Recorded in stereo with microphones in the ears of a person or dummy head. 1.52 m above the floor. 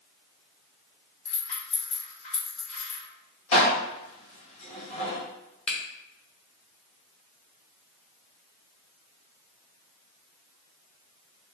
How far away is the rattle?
About 1.6 m.